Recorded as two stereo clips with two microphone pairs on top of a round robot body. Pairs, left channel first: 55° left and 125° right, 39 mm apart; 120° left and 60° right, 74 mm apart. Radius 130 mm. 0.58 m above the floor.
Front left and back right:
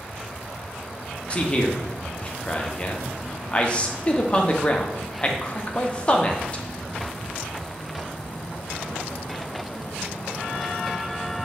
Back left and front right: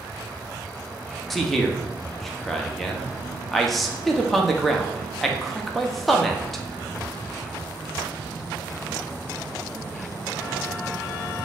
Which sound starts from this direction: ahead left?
A man speaking, at 1.3 s.